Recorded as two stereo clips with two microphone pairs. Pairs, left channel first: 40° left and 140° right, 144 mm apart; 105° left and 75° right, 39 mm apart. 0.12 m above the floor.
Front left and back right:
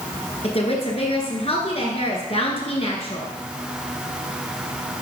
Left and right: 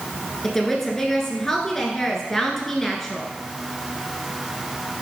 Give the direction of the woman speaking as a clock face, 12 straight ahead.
11 o'clock.